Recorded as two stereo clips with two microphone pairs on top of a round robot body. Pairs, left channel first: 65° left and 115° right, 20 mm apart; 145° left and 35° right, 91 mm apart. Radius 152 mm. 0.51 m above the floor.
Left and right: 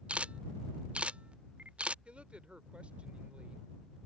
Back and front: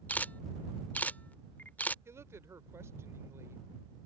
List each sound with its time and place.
0.1 s a camera shutter: 140° right
2.0 s a woman speaking: 90° right